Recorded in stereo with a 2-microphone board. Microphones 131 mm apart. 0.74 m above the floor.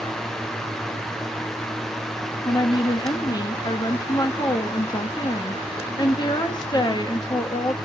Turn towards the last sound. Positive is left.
turn(degrees=35)  # may be behind; listen again after turning